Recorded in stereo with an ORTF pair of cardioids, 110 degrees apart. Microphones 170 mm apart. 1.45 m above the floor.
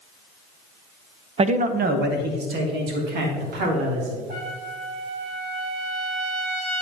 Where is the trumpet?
65° right, 3.5 m.